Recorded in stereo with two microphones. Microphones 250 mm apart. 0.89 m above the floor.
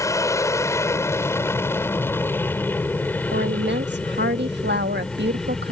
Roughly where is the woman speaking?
Right.